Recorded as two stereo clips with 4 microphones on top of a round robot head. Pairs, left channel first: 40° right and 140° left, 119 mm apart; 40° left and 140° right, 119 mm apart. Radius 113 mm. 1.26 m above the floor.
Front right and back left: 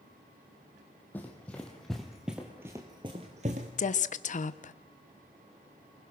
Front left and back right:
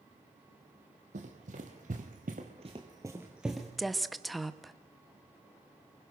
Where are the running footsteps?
115° right, 2 m; by 3.7 s 125° left, 1.4 m.